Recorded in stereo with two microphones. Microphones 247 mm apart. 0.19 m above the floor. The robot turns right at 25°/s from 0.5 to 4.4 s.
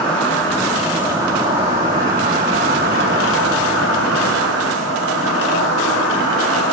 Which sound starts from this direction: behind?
An insect, at 0.0 s.